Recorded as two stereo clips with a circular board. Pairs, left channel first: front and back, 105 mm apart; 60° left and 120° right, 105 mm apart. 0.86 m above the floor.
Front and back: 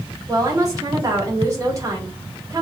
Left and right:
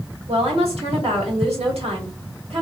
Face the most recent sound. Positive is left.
turn(degrees=-125)